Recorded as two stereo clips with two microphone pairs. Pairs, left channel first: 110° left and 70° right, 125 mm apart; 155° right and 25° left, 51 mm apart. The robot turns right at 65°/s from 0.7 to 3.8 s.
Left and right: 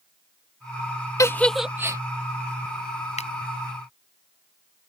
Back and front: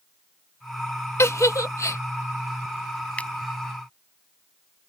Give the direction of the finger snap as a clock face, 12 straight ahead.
7 o'clock.